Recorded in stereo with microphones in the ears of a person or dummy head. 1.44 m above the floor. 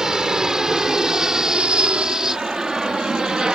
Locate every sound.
0.0 s an aircraft: centre (ahead or behind)